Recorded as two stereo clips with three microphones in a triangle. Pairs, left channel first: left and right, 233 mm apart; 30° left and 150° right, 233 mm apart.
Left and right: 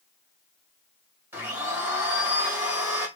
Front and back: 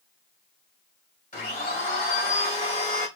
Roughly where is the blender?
Ahead.